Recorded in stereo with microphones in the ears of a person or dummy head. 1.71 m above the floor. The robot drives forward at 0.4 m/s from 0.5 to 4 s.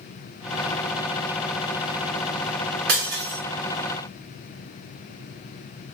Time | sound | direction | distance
2.9 | breaking glass | 55° right (ahead or behind) | 4.5 m